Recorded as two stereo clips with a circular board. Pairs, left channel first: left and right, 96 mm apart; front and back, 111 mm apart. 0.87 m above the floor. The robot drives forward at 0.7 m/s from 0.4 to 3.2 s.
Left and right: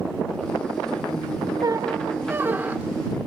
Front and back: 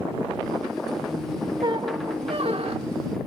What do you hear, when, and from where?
1.6 s a squeak: 130° right, 0.5 m; by 3.1 s 165° right, 1.4 m